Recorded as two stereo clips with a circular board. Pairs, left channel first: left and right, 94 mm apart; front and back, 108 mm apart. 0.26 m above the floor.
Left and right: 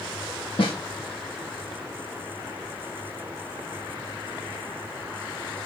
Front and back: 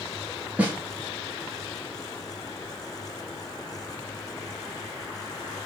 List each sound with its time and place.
0.6 s a snare drum: 105° left, 0.9 m